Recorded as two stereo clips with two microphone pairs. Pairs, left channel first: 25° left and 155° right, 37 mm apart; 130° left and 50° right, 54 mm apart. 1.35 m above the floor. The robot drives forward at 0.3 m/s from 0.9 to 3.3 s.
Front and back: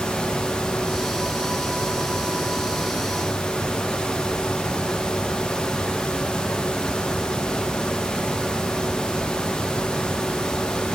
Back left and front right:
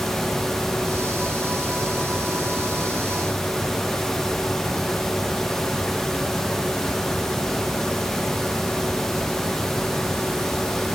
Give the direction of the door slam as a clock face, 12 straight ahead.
No door slam in this recording.